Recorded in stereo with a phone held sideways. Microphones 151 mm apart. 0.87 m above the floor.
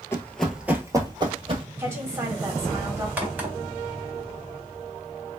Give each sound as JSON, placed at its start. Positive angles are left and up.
{"t": 0.1, "sound": "running footsteps", "side_deg": 20, "distance_m": 0.8}
{"t": 1.8, "sound": "a woman speaking", "side_deg": -20, "distance_m": 1.2}
{"t": 3.2, "sound": "a crack", "side_deg": -10, "distance_m": 1.0}